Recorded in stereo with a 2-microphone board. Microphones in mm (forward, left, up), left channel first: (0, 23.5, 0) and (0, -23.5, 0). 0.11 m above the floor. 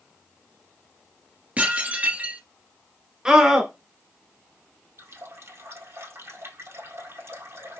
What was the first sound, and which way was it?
Dishes clattering, 30° right (ahead or behind).